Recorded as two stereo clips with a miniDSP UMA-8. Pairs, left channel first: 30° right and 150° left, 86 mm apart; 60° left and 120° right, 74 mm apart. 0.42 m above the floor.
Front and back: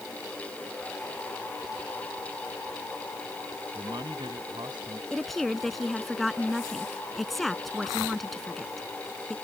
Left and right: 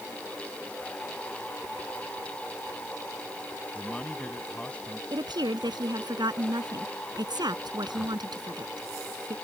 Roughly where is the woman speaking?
Behind right.